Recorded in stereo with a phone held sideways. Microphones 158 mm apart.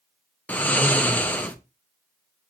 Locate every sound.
0.5 s snoring: 10° left (ahead or behind), 0.7 m